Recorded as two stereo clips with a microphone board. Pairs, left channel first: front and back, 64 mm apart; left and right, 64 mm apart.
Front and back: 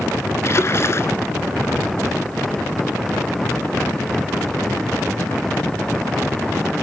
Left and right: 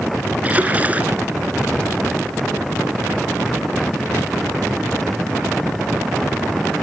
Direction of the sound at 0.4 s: 30° right.